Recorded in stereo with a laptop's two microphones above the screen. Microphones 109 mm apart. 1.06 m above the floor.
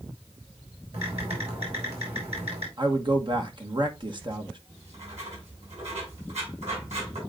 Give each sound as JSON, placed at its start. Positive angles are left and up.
{"t": 0.9, "sound": "typing on a keyboard", "side_deg": -85, "distance_m": 5.0}
{"t": 2.8, "sound": "a man speaking", "side_deg": -50, "distance_m": 1.1}
{"t": 4.7, "sound": "writing", "side_deg": -85, "distance_m": 6.5}